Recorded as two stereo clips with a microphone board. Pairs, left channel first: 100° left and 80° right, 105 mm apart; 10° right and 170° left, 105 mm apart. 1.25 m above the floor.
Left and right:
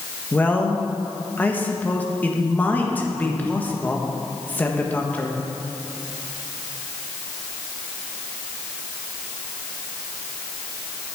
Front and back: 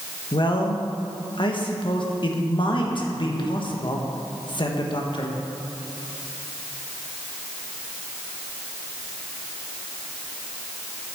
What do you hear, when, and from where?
0.3 s a man speaking: 25° left, 1.5 m